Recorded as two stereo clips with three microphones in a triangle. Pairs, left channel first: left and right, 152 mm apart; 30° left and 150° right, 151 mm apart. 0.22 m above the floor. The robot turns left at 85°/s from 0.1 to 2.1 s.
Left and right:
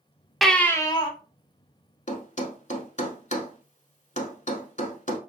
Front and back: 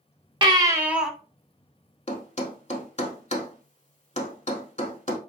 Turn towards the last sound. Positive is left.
turn(degrees=65)